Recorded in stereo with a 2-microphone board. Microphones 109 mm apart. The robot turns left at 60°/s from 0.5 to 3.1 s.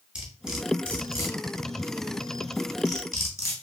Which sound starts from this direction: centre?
Cutlery clinking, at 0.1 s.